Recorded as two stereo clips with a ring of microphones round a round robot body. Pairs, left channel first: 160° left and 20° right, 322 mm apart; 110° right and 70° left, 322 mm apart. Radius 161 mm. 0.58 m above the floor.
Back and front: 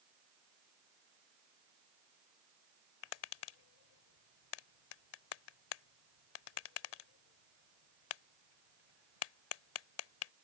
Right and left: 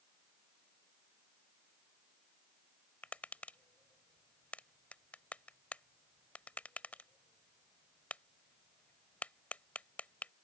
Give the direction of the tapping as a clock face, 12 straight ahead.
7 o'clock.